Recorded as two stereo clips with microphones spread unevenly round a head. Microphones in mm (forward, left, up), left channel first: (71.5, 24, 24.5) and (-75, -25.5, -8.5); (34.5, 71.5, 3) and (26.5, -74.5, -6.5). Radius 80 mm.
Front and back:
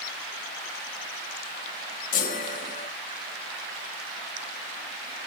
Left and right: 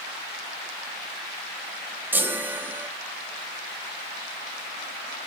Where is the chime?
15° right, 1.9 m.